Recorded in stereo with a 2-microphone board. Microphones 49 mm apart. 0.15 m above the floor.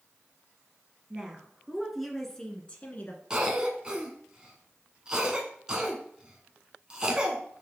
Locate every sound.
1.1 s a woman speaking: 20° right (ahead or behind), 2 m; by 3.2 s 35° left (ahead or behind), 1.5 m
3.3 s a cough: 20° right (ahead or behind), 1.0 m